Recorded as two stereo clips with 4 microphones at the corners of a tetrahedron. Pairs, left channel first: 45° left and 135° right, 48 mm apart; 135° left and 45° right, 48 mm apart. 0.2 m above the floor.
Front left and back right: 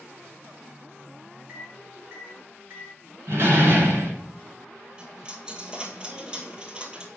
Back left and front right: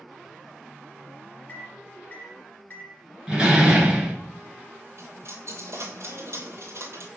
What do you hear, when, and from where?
1.5 s a microwave: 175° right, 2 m
3.3 s a door slam: 115° right, 1.7 m
5.0 s a dropped coin: 65° right, 1.1 m